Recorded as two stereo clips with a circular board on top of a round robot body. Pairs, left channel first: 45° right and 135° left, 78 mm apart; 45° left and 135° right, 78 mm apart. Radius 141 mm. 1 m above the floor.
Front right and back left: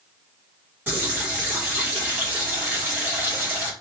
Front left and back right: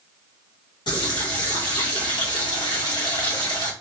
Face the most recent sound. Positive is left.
turn(degrees=70)